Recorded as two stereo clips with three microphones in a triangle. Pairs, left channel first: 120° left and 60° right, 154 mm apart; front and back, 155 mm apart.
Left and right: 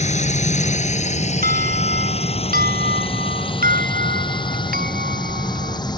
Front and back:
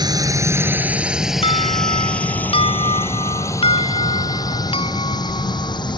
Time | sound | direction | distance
0.0 | a drone | 125° left | ?
1.4 | an alarm | 50° right | ?